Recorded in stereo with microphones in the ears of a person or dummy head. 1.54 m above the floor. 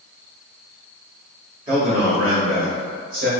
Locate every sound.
1.7 s a man speaking: 30° right (ahead or behind), 1.4 m; by 3.3 s 55° right (ahead or behind), 1.9 m